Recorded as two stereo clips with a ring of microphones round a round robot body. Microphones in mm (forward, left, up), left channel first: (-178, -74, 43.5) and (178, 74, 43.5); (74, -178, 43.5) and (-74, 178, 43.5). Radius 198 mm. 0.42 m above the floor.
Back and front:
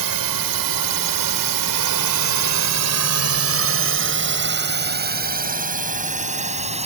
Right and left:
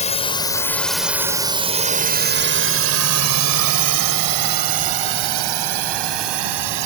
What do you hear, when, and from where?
0.0 s a drone: straight ahead; by 6.8 s 95° left